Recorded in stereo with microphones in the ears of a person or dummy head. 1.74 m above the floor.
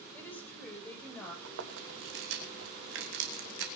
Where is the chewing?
75° right (ahead or behind), 2.5 m.